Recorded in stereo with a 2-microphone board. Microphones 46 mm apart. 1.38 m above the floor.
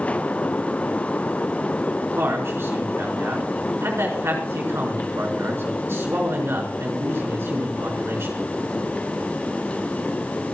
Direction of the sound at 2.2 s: 65° right (ahead or behind).